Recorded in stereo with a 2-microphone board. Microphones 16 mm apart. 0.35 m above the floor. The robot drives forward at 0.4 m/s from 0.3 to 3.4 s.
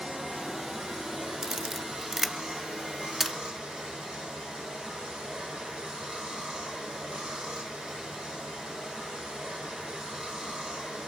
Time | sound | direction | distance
0.0 | running water | 85° right | 10 m
1.4 | a camera shutter | 35° right (ahead or behind) | 0.5 m